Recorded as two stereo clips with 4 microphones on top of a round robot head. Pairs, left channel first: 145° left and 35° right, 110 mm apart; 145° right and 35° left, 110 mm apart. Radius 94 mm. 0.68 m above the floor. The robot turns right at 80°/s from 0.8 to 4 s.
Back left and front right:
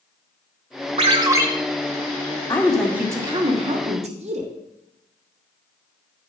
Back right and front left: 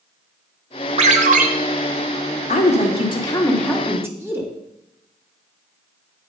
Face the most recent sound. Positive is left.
turn(degrees=-30)